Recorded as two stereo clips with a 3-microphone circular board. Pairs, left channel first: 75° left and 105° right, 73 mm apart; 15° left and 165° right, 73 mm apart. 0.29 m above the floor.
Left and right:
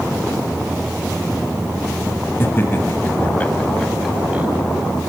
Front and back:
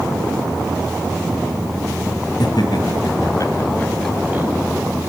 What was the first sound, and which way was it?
Laughter, 15° left.